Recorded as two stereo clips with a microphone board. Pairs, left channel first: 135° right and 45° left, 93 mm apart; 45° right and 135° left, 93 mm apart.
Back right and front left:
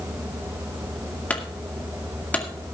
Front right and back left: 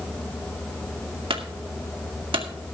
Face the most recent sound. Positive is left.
turn(degrees=150)